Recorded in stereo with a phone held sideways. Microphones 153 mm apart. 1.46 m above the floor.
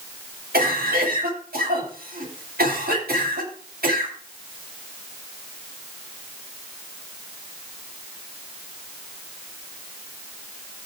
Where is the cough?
85° right, 9.5 m.